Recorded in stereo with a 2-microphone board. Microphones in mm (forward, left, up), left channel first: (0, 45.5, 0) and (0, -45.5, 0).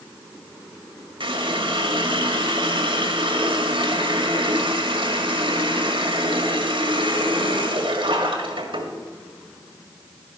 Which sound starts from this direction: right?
A running tap, at 1.2 s.